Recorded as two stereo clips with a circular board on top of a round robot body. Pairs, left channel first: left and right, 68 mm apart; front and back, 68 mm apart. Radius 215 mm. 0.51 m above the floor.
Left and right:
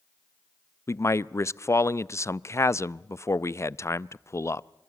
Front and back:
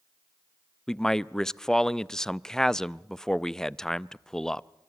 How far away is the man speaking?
About 0.8 m.